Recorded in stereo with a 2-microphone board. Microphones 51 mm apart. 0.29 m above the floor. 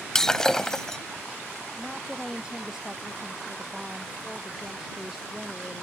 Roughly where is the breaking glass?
Centre.